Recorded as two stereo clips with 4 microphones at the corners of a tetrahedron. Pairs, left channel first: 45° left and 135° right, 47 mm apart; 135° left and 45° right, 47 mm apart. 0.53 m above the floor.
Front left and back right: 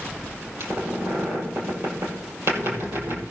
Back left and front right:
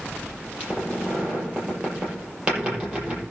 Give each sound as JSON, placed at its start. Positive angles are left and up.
{"t": 0.6, "sound": "a squeak", "azimuth_deg": -115, "distance_m": 6.0}